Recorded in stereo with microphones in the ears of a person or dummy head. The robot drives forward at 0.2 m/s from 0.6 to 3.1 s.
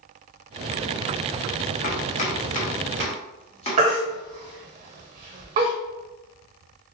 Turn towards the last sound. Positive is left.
turn(degrees=-15)  # may be behind; listen again after turning